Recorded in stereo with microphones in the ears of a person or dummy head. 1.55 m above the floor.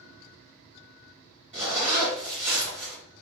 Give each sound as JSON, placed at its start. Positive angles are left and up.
{"t": 1.5, "sound": "a zipper", "side_deg": -35, "distance_m": 1.2}